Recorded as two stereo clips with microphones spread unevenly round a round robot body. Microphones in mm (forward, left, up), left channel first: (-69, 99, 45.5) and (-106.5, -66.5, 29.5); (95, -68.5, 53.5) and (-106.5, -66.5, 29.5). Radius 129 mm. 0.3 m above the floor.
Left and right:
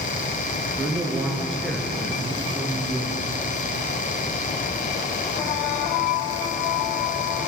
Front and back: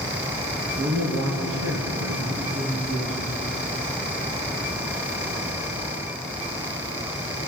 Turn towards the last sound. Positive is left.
turn(degrees=150)